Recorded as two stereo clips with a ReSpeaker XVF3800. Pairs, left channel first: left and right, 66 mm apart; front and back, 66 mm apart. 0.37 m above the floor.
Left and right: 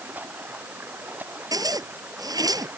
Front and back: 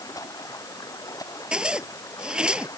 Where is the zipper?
105° right.